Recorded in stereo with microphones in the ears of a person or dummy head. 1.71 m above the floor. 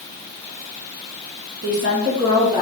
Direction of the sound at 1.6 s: 50° right (ahead or behind).